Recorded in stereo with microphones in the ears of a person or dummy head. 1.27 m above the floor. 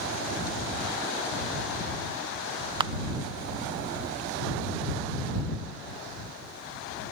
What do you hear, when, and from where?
2.8 s a camera shutter: 25° right (ahead or behind)